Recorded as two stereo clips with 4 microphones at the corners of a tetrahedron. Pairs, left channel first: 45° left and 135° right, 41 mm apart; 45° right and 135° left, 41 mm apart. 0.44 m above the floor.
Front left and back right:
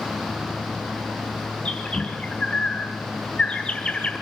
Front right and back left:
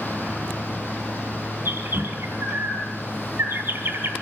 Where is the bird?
115° left, 3.5 m.